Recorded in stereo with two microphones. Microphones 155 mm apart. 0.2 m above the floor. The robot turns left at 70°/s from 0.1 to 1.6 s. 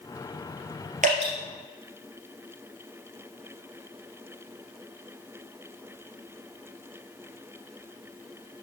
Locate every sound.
1.0 s dripping: 55° right (ahead or behind), 3 m; by 1.3 s 40° right (ahead or behind), 3 m